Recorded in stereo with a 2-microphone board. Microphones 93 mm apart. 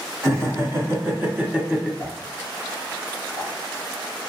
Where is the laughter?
35° right (ahead or behind), 1.6 m; by 1.9 s 5° right (ahead or behind), 1.3 m.